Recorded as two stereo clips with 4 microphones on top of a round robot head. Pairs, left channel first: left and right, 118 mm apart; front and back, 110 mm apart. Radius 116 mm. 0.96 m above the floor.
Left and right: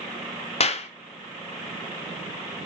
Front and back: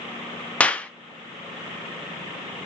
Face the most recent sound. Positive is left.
turn(degrees=80)